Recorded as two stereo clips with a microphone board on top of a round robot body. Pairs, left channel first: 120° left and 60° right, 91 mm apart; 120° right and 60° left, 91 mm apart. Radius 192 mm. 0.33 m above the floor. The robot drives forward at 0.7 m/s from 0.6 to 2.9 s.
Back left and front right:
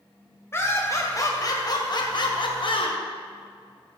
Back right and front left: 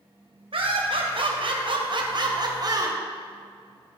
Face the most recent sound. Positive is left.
turn(degrees=105)